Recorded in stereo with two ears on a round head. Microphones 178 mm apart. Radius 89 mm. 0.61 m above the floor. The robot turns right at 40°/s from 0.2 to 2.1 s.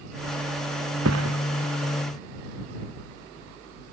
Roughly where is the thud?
Right.